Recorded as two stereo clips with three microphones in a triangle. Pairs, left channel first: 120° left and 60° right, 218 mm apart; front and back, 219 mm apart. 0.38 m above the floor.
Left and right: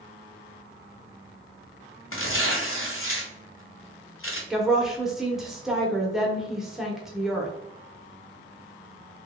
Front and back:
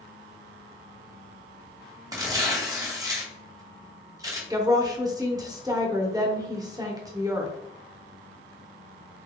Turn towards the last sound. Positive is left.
turn(degrees=-145)